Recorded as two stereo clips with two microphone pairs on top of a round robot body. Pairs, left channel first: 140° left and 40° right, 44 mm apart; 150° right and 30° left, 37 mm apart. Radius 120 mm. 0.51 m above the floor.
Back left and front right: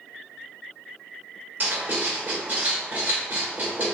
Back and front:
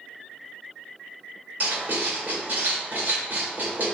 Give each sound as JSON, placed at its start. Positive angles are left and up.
{"t": 1.6, "sound": "writing", "azimuth_deg": 5, "distance_m": 2.0}